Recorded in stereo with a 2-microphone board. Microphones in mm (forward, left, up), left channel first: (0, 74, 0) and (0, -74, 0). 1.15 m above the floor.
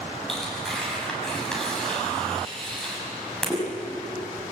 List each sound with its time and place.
0.3 s tearing paper: 5° left (ahead or behind), 6.5 m